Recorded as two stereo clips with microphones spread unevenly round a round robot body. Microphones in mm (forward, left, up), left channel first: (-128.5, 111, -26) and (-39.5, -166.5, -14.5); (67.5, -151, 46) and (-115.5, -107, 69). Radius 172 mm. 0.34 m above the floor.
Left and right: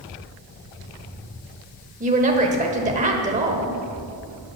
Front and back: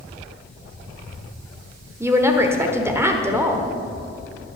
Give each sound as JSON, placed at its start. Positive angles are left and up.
{"t": 2.0, "sound": "a woman speaking", "azimuth_deg": -115, "distance_m": 1.2}